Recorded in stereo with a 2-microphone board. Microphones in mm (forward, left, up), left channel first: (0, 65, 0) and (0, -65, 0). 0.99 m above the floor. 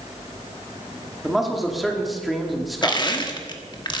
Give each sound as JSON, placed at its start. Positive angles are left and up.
{"t": 1.2, "sound": "a man speaking", "side_deg": 0, "distance_m": 2.5}
{"t": 2.8, "sound": "crushing", "side_deg": 35, "distance_m": 1.4}